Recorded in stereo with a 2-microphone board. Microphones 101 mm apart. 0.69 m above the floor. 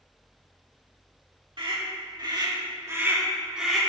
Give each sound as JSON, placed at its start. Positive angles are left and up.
{"t": 1.6, "sound": "a scream", "side_deg": -55, "distance_m": 2.0}